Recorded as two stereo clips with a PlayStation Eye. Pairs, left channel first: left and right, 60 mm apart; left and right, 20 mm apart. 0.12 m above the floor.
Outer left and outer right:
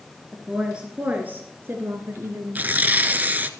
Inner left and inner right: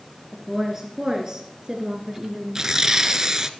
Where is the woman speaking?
5° right (ahead or behind), 2 m; by 2.7 s 50° right (ahead or behind), 2.5 m.